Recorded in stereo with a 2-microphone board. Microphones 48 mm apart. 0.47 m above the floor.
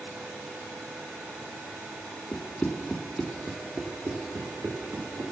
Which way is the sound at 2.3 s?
40° left (ahead or behind).